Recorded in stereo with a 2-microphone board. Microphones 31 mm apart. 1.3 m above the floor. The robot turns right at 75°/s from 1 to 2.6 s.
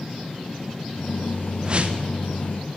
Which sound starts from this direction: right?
A whoosh, at 1.6 s.